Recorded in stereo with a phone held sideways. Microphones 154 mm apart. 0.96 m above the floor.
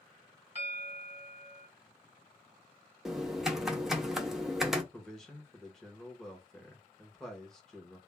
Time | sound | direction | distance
0.6 | a bell | 45° left (ahead or behind) | 1.4 m
3.0 | typing on a keyboard | 5° right (ahead or behind) | 0.5 m
4.9 | a man speaking | 5° left (ahead or behind) | 0.8 m